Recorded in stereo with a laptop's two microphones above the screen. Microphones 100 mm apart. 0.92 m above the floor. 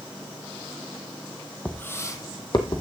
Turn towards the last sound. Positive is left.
turn(degrees=50)  # may be behind; listen again after turning